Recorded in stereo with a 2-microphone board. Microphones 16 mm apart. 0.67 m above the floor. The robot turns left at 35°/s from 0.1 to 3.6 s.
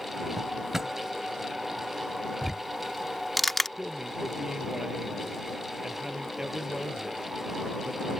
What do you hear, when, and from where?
0.4 s a drawer: 10° right (ahead or behind); by 0.9 s 30° right (ahead or behind)
2.4 s ticking: 25° right (ahead or behind); by 3.7 s 15° left (ahead or behind)
3.8 s a man speaking: 45° right (ahead or behind)